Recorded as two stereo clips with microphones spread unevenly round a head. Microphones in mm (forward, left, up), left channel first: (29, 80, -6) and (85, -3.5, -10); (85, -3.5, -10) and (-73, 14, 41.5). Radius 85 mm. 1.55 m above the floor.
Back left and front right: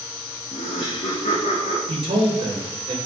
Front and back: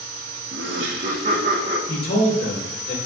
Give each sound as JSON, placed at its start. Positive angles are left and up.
{"t": 0.5, "sound": "laughter", "azimuth_deg": 170, "distance_m": 0.9}
{"t": 1.9, "sound": "a man speaking", "azimuth_deg": -25, "distance_m": 2.5}